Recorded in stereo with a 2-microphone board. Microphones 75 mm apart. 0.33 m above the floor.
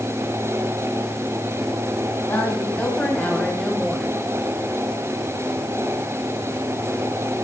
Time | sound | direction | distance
2.3 | a woman speaking | 25° left (ahead or behind) | 3.5 m